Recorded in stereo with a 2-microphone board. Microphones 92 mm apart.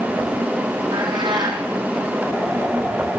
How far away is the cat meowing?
About 3.5 m.